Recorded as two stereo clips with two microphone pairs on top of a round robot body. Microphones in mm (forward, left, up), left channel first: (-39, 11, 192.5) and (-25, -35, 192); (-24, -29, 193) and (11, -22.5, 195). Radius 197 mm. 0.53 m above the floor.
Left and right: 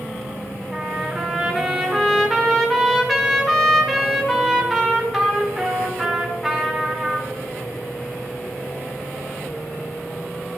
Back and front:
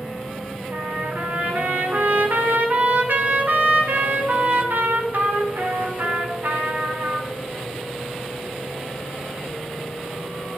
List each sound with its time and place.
0.7 s a trumpet: 20° left, 1.5 m